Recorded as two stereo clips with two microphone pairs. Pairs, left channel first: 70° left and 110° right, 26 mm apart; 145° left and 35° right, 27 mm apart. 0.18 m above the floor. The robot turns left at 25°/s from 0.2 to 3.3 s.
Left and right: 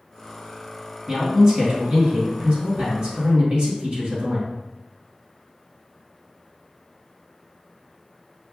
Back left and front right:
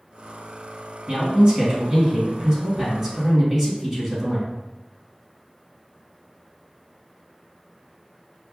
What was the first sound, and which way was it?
A man speaking, 50° right.